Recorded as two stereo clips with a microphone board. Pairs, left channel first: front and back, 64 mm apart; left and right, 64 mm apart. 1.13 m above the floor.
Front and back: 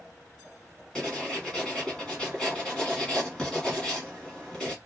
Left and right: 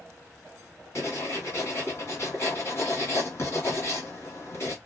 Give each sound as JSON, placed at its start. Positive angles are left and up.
{"t": 0.9, "sound": "writing", "azimuth_deg": 75, "distance_m": 1.5}